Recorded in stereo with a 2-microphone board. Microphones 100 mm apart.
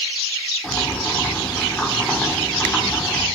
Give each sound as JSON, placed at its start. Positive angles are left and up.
{"t": 0.6, "sound": "boiling", "side_deg": 10, "distance_m": 2.0}